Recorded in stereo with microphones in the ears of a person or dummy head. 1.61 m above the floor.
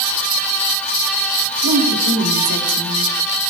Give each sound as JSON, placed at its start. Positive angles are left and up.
{"t": 1.6, "sound": "a woman speaking", "side_deg": -85, "distance_m": 4.5}